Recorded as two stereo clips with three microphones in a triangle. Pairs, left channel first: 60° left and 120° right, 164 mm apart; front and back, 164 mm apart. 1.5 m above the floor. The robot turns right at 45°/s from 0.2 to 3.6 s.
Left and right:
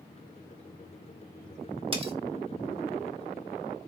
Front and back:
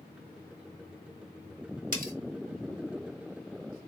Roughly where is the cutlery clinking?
Behind.